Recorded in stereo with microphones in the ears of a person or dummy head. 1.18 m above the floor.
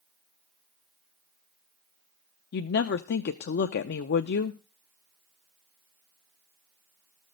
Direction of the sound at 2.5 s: 50° left (ahead or behind).